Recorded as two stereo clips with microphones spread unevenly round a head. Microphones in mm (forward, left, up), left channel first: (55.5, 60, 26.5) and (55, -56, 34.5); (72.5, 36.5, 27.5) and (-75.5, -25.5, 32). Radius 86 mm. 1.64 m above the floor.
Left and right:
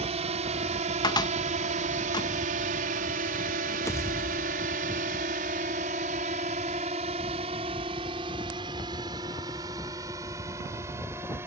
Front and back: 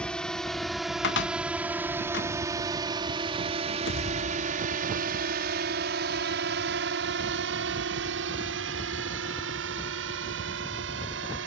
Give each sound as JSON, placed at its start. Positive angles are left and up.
{"t": 0.0, "sound": "a drone", "azimuth_deg": -60}
{"t": 1.0, "sound": "a cupboard door", "azimuth_deg": 35}
{"t": 3.9, "sound": "a pop", "azimuth_deg": 25}